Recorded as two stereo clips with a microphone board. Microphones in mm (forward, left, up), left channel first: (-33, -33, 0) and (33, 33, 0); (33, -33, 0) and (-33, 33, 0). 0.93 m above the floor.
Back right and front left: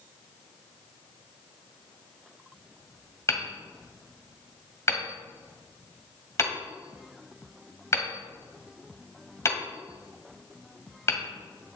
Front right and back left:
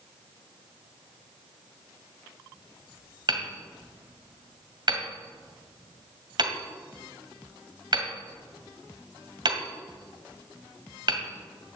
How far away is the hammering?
About 2.0 m.